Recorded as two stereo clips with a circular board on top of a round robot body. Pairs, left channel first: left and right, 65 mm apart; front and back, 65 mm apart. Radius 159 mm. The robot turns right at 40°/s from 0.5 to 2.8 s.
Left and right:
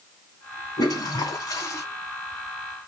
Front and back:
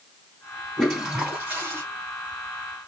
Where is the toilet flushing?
85° left, 2.5 m; by 1.8 s 125° left, 2.5 m.